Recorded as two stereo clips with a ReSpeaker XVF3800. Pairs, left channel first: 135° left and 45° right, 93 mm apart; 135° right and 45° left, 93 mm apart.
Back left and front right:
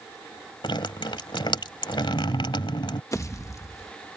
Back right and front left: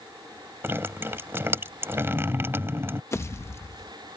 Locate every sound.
0.6 s dripping: 110° left
3.1 s a pop: 175° left